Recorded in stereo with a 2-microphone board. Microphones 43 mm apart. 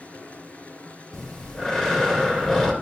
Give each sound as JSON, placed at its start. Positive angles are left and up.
{"t": 0.0, "sound": "running water", "side_deg": 35, "distance_m": 3.0}
{"t": 1.1, "sound": "breathing", "side_deg": 15, "distance_m": 2.5}